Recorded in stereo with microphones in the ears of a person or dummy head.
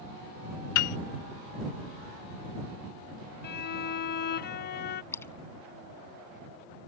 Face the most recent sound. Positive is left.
turn(degrees=15)  # may be behind; listen again after turning